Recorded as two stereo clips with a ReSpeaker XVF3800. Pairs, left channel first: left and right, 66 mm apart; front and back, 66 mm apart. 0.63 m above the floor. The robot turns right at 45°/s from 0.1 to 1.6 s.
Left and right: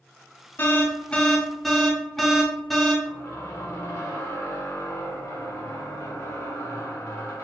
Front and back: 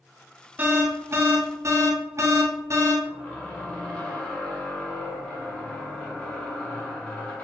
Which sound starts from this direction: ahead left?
A squeak, at 3.0 s.